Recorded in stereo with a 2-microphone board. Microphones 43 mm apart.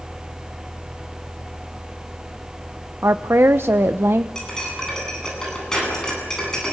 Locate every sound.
3.0 s a woman speaking: 65° right (ahead or behind), 0.8 m
4.3 s cutlery clinking: 15° left (ahead or behind), 9.5 m